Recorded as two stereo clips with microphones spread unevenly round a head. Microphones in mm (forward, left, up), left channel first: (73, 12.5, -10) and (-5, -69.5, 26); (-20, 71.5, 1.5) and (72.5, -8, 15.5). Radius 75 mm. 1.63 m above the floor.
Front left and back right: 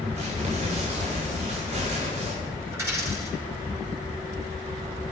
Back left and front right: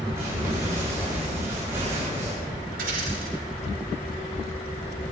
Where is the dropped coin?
70° right, 9 m.